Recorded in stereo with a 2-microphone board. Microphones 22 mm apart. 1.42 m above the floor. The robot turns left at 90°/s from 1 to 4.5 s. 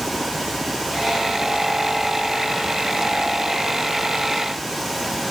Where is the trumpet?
No trumpet in this recording.